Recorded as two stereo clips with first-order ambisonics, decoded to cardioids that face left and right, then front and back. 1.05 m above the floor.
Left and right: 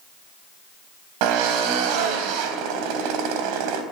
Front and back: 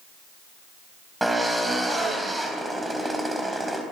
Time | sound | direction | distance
1.2 | a drill | 95° right | 3.5 m